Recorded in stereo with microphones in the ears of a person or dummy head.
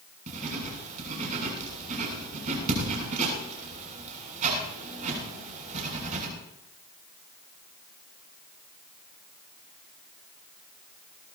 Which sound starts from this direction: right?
Writing, at 0.3 s.